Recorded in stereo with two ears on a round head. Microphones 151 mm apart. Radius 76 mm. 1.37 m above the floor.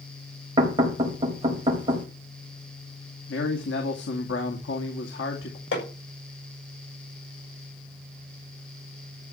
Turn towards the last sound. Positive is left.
turn(degrees=80)